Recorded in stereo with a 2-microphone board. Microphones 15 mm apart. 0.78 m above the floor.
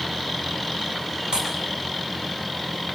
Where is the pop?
75° right (ahead or behind), 7.5 m.